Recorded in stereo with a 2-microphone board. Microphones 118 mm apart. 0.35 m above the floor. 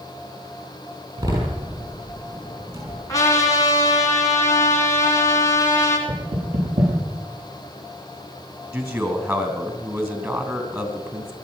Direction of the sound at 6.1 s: 65° right (ahead or behind).